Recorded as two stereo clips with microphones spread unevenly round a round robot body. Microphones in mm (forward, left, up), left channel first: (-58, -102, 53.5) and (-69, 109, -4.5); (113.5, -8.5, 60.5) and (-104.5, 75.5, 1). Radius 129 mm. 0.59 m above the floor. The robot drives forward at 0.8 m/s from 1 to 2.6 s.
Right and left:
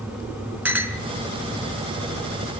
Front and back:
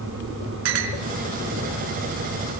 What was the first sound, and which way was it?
A clink, 175° left.